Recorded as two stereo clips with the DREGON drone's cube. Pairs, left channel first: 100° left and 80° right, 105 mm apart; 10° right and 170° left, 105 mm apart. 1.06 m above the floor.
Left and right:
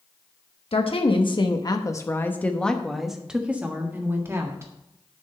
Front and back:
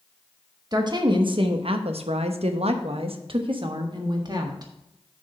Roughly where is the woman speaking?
Behind left.